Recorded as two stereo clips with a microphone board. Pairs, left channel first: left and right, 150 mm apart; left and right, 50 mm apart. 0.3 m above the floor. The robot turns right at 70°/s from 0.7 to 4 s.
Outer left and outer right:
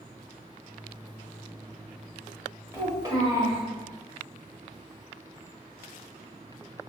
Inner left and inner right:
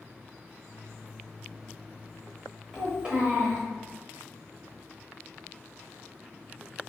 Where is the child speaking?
20° right (ahead or behind), 0.8 m.